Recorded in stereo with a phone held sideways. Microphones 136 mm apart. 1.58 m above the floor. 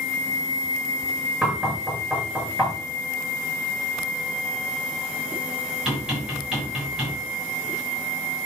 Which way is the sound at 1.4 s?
5° right (ahead or behind).